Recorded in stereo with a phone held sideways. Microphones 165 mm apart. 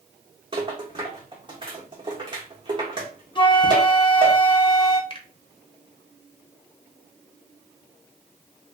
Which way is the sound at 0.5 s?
30° right (ahead or behind).